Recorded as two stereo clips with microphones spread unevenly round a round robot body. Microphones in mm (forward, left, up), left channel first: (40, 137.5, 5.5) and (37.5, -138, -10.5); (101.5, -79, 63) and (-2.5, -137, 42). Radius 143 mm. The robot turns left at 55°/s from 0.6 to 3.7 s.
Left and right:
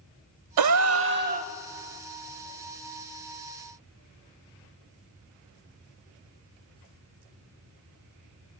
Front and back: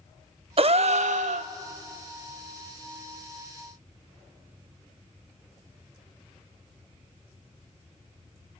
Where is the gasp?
110° right, 0.5 m; by 1.5 s 160° right, 0.5 m.